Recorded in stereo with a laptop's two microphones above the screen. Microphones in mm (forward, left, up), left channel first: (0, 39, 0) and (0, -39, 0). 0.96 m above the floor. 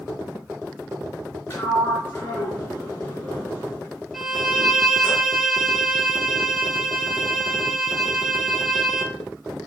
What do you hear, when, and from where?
1.5 s a sliding door: 25° left (ahead or behind), 3 m
4.1 s a violin: centre (ahead or behind), 1.0 m